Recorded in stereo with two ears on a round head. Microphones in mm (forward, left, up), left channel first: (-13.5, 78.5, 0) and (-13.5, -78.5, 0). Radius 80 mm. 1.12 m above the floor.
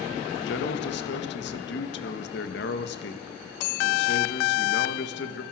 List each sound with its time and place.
0.4 s a man speaking: 70° left (ahead or behind), 1.7 m